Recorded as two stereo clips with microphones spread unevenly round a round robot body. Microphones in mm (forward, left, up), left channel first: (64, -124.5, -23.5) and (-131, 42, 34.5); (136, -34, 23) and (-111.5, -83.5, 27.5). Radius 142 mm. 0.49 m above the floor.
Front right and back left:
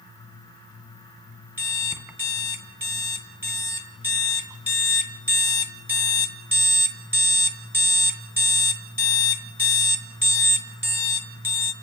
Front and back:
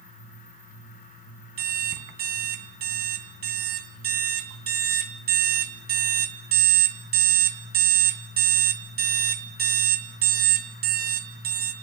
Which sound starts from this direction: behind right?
An alarm clock, at 1.6 s.